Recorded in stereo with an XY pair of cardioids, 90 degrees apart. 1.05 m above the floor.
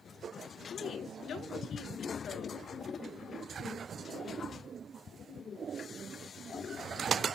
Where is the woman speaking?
70° left, 3 m.